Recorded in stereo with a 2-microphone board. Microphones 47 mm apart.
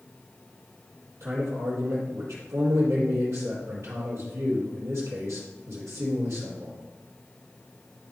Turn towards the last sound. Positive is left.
turn(degrees=-70)  # may be behind; listen again after turning